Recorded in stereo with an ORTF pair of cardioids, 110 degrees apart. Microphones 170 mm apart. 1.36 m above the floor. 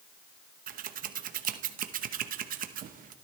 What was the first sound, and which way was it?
Scissors, 60° right.